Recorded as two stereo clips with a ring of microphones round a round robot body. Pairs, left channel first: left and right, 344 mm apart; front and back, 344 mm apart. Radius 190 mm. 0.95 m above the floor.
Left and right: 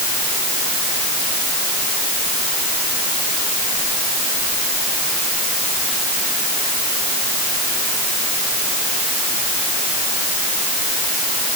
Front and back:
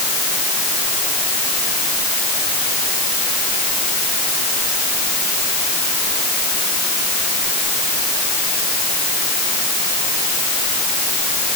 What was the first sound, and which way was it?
Only background noise.